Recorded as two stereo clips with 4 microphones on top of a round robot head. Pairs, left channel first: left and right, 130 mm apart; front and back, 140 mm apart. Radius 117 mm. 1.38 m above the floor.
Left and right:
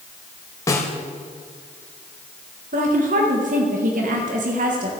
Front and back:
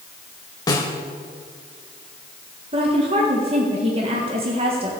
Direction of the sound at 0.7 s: 40° left.